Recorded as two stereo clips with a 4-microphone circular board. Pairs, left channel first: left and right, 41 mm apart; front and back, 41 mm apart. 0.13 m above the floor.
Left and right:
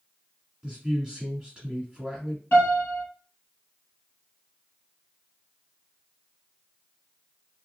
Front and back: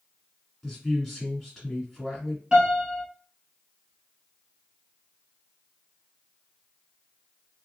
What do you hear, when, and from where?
0.6 s a man speaking: 90° right, 1.3 m
2.5 s a piano: 115° left, 2 m